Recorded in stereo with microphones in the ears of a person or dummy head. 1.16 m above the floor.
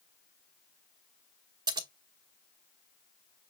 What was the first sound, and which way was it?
Scissors, 25° right (ahead or behind).